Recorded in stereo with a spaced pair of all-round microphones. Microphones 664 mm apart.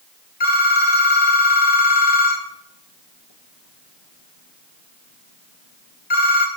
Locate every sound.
0.4 s a phone ringing: 75° left (ahead or behind), 2 m